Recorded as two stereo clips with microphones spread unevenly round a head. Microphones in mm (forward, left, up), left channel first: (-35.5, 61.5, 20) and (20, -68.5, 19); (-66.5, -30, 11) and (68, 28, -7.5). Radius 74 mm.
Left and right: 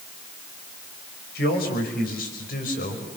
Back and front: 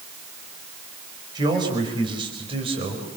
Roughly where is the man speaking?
Left.